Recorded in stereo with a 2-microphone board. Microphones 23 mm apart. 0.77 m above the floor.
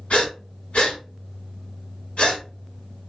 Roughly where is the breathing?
Left.